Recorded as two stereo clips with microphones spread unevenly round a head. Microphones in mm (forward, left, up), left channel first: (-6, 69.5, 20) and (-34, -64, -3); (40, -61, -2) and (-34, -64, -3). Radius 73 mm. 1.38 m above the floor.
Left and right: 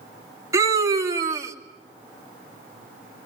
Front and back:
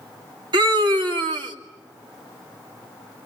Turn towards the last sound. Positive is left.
turn(degrees=-170)